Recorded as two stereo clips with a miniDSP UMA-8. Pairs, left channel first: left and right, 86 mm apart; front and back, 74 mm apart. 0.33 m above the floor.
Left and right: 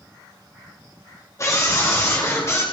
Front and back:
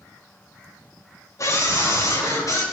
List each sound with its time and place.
1.4 s a scream: 40° left, 5 m; by 2.6 s 35° left, 5.5 m